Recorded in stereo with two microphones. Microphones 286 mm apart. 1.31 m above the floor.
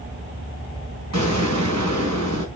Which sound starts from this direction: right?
An explosion, at 1.1 s.